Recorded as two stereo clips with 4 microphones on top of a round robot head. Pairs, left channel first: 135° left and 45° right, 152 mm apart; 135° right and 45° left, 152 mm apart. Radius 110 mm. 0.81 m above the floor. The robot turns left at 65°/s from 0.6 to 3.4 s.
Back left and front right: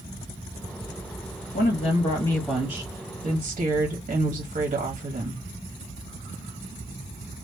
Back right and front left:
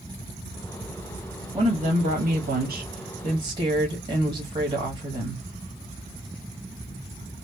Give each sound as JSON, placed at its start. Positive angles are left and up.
{"t": 1.5, "sound": "a woman speaking", "azimuth_deg": 115, "distance_m": 1.4}